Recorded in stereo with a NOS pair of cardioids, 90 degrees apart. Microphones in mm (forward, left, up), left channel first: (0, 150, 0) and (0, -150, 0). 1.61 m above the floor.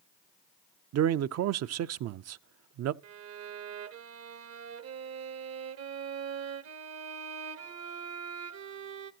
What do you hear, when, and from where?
0.9 s a man speaking: 55° right, 0.5 m
3.0 s a violin: 55° right, 0.8 m